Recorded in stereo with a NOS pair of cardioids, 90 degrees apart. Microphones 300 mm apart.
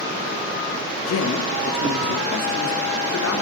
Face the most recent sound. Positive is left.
turn(degrees=65)